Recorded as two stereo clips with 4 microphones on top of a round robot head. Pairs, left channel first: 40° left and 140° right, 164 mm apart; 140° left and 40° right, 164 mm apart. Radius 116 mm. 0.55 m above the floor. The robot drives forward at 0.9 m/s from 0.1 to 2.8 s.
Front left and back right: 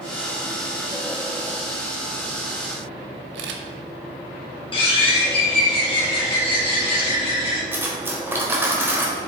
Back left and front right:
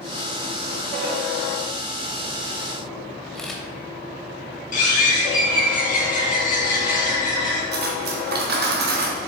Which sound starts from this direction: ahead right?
Cutlery clinking, at 7.7 s.